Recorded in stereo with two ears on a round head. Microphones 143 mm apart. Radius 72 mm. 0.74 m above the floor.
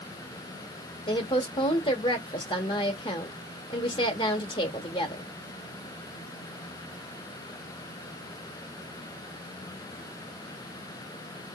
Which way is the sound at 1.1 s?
30° left (ahead or behind).